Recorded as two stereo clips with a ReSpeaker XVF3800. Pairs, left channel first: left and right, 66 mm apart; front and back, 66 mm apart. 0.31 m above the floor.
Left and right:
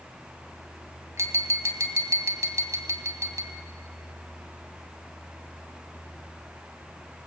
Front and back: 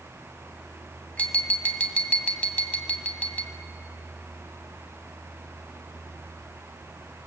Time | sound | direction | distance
1.2 | tapping | 65° right | 2.0 m